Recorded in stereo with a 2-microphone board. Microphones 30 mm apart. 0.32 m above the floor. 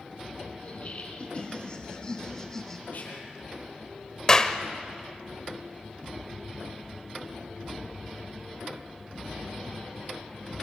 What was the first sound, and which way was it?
Laughter, 45° left (ahead or behind).